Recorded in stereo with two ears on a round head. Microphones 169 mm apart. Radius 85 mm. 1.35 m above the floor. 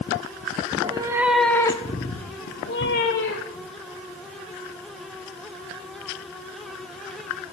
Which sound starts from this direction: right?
A cat meowing, at 0.7 s.